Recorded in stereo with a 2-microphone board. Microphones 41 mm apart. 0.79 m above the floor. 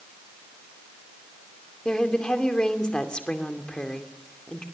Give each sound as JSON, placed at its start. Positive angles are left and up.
{"t": 1.9, "sound": "a woman speaking", "side_deg": 20, "distance_m": 2.5}